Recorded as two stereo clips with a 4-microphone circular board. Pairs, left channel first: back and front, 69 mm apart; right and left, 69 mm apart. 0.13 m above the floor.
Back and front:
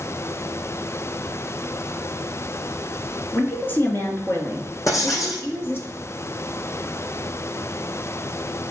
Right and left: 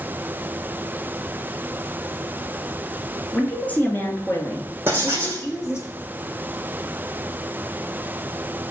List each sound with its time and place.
3.3 s a woman speaking: 150° right, 1.7 m; by 5.9 s 130° right, 3.5 m
4.9 s writing: 145° left, 3 m